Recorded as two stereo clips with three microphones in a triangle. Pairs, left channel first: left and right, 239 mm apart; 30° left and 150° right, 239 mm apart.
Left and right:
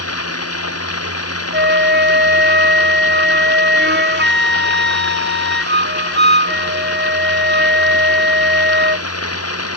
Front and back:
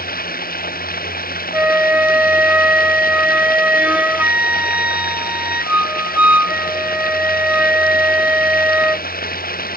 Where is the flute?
70° right.